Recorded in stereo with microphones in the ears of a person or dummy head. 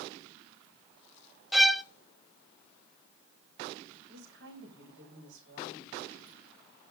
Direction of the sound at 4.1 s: 70° right (ahead or behind).